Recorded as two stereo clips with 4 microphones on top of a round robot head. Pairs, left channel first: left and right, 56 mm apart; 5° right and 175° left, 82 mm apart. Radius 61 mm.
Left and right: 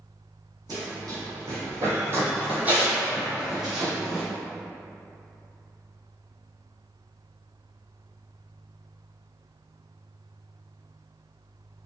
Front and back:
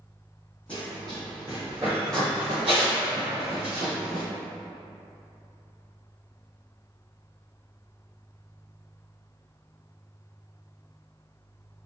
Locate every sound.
0.7 s running footsteps: 85° right, 1.5 m; by 4.2 s straight behind, 1.8 m